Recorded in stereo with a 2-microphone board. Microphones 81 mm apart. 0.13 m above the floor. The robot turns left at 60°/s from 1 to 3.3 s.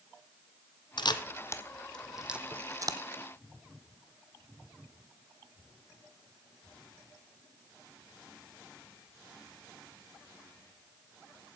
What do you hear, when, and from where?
1.0 s a camera shutter: 65° left (ahead or behind), 0.7 m; by 3.0 s 55° right (ahead or behind), 0.7 m